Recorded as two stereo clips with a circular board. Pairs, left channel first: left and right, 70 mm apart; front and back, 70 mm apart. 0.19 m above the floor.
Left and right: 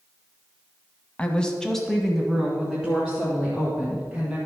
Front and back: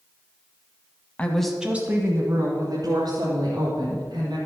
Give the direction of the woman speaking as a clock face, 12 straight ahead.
11 o'clock.